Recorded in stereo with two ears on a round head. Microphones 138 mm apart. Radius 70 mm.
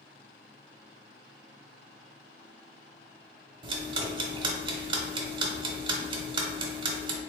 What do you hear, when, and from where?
3.6 s ticking: 35° right (ahead or behind), 0.8 m